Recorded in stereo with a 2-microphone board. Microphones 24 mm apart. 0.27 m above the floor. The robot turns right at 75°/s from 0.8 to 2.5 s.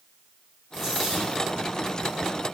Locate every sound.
0.7 s a dropped coin: straight ahead, 5 m; by 1.4 s 45° left, 5 m